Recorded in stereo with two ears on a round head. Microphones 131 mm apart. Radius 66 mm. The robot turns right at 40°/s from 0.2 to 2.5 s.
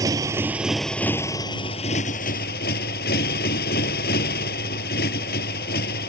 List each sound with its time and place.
0.0 s a motorcycle: 25° right; by 6.1 s 70° left